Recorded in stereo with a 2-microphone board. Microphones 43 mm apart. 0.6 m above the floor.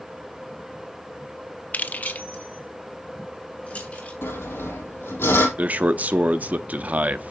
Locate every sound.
1.7 s keys jangling: 40° left (ahead or behind), 0.5 m; by 4.1 s 35° left (ahead or behind), 3.5 m
4.2 s sawing: 70° left (ahead or behind), 3.5 m
5.6 s a man speaking: 40° right (ahead or behind), 0.6 m